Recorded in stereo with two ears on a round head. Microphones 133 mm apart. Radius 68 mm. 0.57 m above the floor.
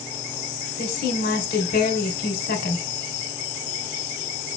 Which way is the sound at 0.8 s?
65° left (ahead or behind).